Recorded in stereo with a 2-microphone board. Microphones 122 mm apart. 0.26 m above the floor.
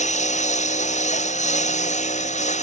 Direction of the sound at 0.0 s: 90° left.